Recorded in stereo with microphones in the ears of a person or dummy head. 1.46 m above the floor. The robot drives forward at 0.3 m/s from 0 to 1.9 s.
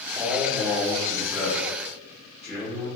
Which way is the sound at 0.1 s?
10° right (ahead or behind).